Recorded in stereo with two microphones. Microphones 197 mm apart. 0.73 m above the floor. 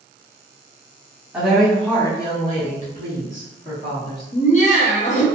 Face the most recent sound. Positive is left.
turn(degrees=40)  # may be behind; listen again after turning